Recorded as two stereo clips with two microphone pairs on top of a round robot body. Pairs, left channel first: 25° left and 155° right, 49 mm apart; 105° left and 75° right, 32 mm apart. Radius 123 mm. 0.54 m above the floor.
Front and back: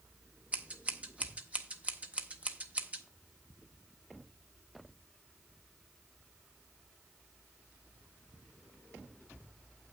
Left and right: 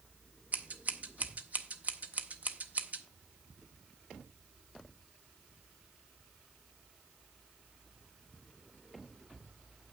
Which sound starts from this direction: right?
Scissors, at 0.5 s.